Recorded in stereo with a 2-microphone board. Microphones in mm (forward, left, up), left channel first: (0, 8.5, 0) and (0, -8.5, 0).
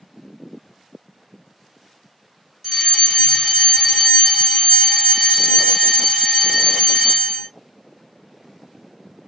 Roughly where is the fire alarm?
Centre.